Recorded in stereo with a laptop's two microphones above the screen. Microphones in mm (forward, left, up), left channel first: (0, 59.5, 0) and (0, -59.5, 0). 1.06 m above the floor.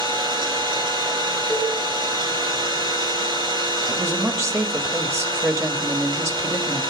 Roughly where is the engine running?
Right.